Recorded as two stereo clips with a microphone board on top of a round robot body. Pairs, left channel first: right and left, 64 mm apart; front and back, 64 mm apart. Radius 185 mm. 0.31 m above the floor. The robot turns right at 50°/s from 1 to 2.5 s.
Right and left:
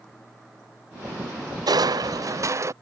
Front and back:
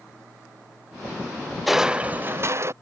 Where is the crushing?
90° left; by 2.7 s 130° left.